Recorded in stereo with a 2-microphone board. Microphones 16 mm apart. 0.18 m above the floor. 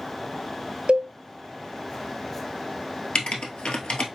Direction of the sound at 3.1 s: 75° left (ahead or behind).